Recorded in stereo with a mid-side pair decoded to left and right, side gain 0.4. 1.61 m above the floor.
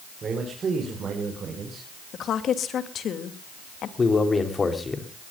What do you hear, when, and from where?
0.2 s a man speaking: 50° right, 5 m; by 1.9 s 55° right, 6.5 m
2.1 s a woman speaking: 70° left, 2.5 m
4.0 s a man speaking: 35° left, 3.5 m